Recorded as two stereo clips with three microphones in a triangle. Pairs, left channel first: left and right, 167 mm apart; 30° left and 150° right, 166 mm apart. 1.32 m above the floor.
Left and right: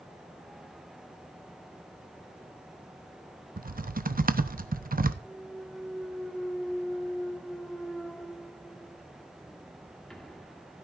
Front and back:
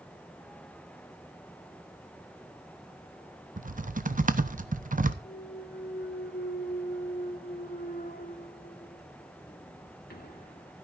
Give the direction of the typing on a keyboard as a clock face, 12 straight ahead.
4 o'clock.